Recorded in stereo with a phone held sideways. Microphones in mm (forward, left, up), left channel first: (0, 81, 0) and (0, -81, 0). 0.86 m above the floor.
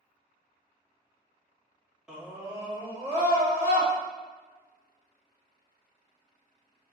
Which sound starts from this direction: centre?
A scream, at 2.1 s.